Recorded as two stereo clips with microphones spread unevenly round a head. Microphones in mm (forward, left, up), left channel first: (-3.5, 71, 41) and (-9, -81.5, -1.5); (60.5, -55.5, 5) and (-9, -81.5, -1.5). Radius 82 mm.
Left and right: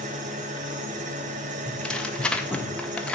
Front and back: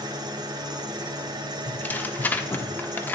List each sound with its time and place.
0.0 s an engine running: 140° right, 1.5 m
1.7 s tearing paper: 25° right, 0.8 m